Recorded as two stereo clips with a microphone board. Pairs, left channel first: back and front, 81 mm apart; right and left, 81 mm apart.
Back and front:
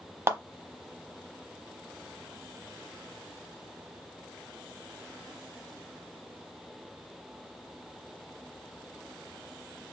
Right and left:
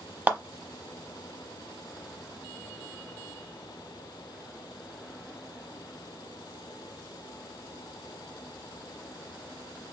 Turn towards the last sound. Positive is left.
turn(degrees=30)